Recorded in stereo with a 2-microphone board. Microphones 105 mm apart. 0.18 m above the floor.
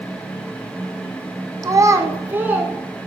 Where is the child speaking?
35° right (ahead or behind), 1.0 m; by 2.7 s 15° right (ahead or behind), 1.5 m.